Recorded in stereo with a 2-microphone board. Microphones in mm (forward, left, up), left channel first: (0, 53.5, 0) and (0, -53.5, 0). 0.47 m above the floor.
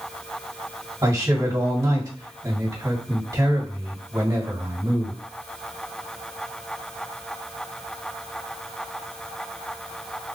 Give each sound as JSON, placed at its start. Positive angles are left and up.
{"t": 1.0, "sound": "a man speaking", "side_deg": -35, "distance_m": 2.0}